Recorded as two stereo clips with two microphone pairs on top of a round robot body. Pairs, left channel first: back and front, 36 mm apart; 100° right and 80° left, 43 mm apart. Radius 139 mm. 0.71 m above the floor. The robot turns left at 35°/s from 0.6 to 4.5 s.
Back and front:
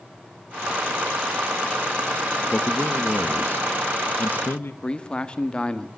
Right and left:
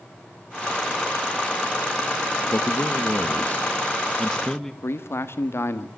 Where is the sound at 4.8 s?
115° right, 1.5 m.